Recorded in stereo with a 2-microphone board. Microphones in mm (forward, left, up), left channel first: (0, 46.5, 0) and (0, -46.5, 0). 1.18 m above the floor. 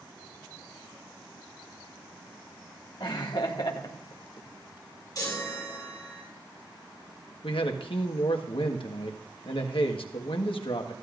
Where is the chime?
40° left (ahead or behind), 6 m.